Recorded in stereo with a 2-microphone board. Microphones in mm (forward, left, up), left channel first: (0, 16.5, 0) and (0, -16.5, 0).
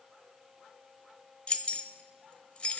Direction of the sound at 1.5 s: 35° left (ahead or behind).